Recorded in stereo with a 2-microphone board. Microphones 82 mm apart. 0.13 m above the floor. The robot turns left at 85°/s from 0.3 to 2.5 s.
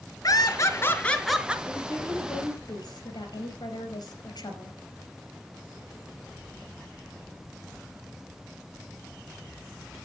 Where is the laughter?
90° left, 2.0 m; by 1.6 s 20° right, 2.0 m.